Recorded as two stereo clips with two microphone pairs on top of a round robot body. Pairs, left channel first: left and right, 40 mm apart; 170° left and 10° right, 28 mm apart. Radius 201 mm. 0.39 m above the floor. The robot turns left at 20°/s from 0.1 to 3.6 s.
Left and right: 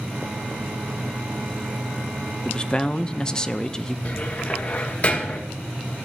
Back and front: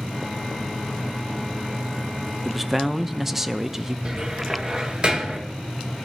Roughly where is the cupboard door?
Ahead left.